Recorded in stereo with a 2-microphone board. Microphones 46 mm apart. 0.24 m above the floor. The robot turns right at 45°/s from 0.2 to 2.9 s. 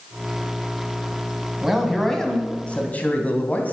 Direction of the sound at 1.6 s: 10° right.